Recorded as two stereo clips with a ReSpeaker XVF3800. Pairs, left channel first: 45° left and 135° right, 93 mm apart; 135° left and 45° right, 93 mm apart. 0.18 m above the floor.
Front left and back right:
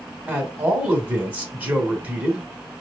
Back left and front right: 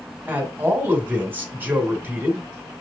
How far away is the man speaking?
About 1.1 m.